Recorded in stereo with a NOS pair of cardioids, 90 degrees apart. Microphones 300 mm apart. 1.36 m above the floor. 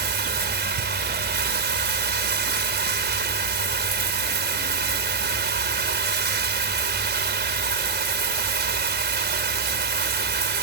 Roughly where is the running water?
Ahead right.